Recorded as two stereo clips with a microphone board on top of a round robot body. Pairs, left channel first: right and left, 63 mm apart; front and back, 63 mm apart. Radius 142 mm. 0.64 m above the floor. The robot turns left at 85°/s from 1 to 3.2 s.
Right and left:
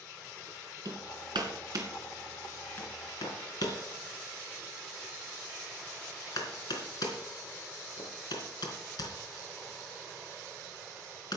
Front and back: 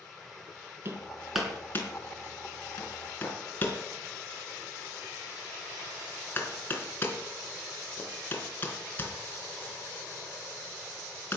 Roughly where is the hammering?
Behind left.